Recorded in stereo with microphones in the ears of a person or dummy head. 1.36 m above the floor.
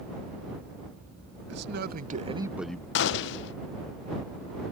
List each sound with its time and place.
1.5 s a man speaking: 70° right (ahead or behind); by 2.9 s 15° left (ahead or behind)
3.0 s a gunshot: 70° left (ahead or behind)